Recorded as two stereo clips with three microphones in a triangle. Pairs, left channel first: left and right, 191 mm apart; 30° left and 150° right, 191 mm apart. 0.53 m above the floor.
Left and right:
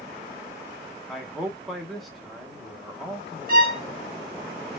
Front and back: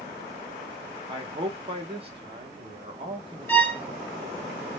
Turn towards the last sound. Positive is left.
turn(degrees=-50)